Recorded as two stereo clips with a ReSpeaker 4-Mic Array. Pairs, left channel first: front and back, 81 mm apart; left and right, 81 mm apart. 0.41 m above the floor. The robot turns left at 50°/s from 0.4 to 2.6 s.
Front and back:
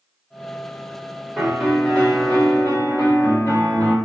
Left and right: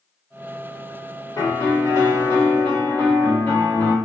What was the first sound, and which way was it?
A piano, 90° left.